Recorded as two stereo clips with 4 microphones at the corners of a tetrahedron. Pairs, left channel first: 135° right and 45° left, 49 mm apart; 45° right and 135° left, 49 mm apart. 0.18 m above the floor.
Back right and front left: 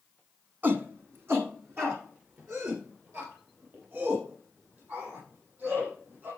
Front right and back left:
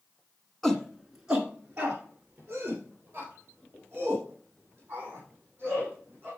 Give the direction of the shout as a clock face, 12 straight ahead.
11 o'clock.